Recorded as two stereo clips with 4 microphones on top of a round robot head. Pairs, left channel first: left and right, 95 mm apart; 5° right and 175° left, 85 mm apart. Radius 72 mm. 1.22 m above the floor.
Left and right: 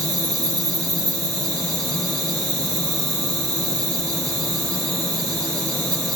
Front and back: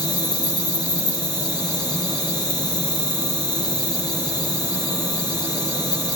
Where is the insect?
35° right, 2.5 m.